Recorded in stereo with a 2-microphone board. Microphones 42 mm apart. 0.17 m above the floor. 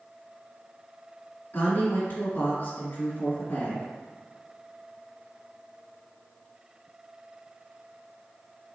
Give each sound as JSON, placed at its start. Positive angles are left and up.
{"t": 1.5, "sound": "a woman speaking", "side_deg": 40, "distance_m": 1.2}